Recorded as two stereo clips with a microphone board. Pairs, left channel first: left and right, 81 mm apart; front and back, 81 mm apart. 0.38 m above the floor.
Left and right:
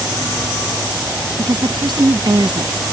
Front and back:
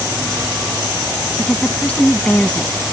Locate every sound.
1.4 s a woman speaking: 75° right